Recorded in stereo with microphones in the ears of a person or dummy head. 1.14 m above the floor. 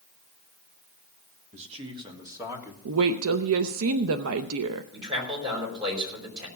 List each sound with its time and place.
1.5 s a man speaking: 40° right (ahead or behind), 2 m; by 2.8 s 10° right (ahead or behind), 3 m
2.9 s a woman speaking: 75° right (ahead or behind), 0.6 m
4.9 s a man speaking: 25° right (ahead or behind), 5 m